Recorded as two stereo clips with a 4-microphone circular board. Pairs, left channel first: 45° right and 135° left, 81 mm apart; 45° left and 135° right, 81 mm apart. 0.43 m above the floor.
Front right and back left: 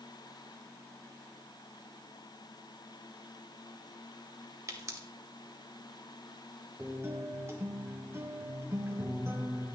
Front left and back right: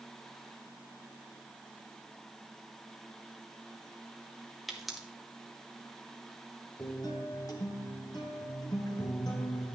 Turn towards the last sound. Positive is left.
turn(degrees=80)